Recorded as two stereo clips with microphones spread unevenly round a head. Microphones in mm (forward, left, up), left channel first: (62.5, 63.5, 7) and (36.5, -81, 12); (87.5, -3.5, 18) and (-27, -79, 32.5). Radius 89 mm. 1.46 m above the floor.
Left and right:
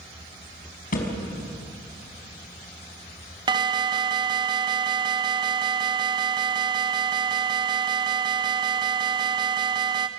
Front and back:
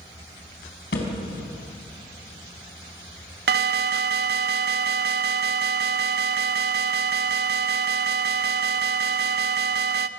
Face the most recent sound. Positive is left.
turn(degrees=-170)